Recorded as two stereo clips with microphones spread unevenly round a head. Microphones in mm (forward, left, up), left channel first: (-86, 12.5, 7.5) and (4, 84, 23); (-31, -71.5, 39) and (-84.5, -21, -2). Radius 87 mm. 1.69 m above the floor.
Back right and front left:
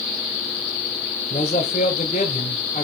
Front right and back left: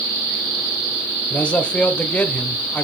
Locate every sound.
1.3 s a man speaking: 90° right, 0.7 m